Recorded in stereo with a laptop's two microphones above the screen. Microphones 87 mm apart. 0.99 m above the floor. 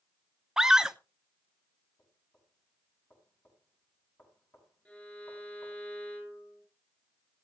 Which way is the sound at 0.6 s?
5° right (ahead or behind).